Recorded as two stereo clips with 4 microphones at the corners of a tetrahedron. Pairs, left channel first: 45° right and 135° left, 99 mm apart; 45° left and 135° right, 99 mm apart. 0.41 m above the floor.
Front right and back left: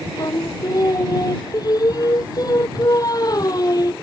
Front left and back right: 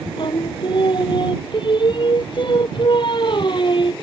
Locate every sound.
0.2 s singing: 5° left